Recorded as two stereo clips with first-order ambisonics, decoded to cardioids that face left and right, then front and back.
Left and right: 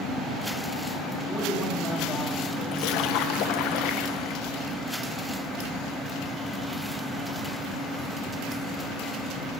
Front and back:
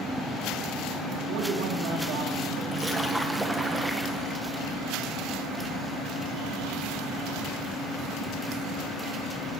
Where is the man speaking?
170° left, 3 m.